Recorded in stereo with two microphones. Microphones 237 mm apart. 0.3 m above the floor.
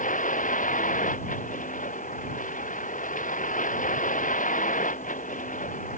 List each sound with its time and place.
0.0 s a vehicle: 35° left (ahead or behind)